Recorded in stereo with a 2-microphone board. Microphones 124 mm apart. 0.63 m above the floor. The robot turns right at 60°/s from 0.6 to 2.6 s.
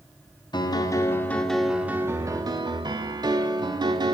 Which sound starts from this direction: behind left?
A piano, at 0.5 s.